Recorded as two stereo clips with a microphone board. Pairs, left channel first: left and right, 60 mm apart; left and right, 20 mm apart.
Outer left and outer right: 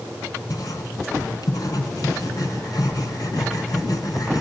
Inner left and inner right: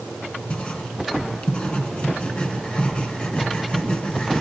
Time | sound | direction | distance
0.5 | writing | 80° left | 3.5 m